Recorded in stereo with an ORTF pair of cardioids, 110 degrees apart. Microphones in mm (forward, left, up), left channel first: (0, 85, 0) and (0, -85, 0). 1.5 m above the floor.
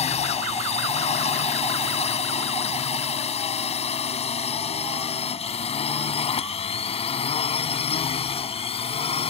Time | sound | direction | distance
0.0 | a drone | 40° left | ?